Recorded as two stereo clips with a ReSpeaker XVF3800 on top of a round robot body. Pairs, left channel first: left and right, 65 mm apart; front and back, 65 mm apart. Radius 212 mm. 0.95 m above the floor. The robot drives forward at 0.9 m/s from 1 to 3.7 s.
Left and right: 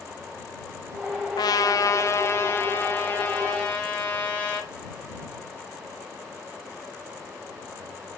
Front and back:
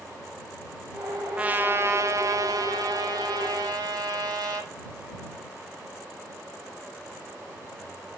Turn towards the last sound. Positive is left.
turn(degrees=160)